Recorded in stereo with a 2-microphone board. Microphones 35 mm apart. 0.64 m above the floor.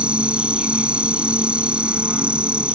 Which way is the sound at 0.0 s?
35° right (ahead or behind).